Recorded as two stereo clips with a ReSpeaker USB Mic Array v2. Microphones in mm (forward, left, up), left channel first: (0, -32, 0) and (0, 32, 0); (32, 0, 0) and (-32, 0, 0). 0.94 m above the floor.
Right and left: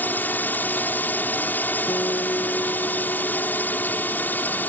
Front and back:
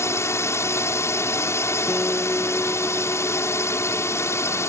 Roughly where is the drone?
Ahead right.